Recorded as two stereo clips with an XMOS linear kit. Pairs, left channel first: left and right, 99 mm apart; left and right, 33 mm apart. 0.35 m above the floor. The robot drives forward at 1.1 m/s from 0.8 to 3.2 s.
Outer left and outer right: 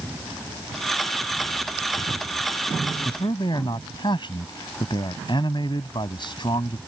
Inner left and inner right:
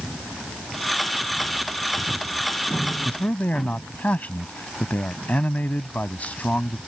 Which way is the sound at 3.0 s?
55° left (ahead or behind).